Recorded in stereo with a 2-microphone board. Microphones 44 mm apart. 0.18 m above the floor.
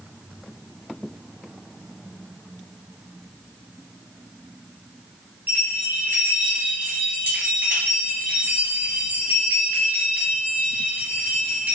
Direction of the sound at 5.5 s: 55° right (ahead or behind).